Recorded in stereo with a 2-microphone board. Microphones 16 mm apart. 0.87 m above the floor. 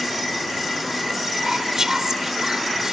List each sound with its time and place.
1.3 s whispering: 35° right (ahead or behind)